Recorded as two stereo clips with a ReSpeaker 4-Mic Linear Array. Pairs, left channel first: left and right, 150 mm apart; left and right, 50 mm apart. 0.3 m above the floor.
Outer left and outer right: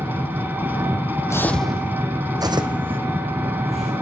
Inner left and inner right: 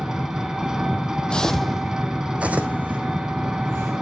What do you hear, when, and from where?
0.0 s an engine running: 15° right (ahead or behind), 1.0 m
1.3 s footsteps: 20° left (ahead or behind), 0.7 m; by 3.9 s 45° right (ahead or behind), 1.9 m